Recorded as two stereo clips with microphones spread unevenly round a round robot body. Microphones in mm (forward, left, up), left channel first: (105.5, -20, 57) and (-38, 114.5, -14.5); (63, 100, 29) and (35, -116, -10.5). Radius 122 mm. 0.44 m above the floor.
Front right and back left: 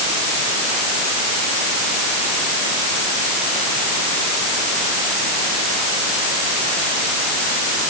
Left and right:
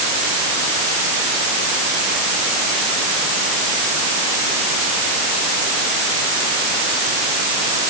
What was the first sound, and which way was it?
Only background noise.